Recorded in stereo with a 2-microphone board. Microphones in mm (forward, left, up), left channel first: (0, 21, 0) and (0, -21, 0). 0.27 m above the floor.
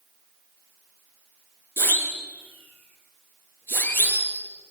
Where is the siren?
70° left (ahead or behind), 6 m; by 4.4 s 60° left (ahead or behind), 7 m.